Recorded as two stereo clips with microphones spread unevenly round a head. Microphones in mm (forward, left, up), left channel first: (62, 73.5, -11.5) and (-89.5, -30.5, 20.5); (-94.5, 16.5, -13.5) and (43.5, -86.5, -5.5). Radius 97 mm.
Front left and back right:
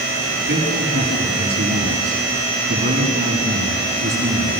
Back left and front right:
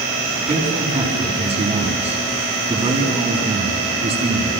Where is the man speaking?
95° right, 6.5 m.